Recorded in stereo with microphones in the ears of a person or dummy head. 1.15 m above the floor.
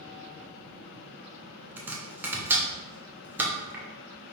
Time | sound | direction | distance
1.8 | chopping | 10° right (ahead or behind) | 0.6 m